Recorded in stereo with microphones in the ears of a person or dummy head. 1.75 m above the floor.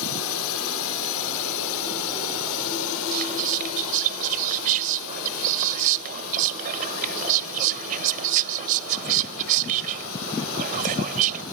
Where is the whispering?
45° right (ahead or behind).